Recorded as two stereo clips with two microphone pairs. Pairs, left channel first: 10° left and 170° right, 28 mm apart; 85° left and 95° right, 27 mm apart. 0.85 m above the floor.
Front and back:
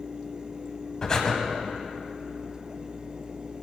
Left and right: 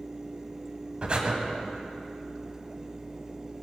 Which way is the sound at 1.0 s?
50° right.